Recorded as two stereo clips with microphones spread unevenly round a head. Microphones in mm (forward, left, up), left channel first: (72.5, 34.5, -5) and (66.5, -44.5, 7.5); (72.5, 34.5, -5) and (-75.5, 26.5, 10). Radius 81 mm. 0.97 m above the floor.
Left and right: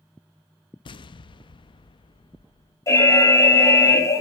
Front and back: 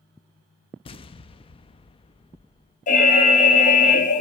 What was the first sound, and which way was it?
An explosion, 60° left.